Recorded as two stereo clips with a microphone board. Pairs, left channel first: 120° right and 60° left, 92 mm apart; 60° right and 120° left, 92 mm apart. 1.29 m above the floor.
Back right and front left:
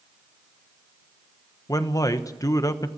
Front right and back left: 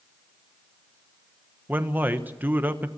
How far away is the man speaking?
About 1.1 m.